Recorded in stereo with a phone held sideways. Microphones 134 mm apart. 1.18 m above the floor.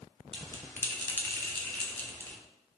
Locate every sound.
0.3 s a bell: 15° left (ahead or behind), 0.5 m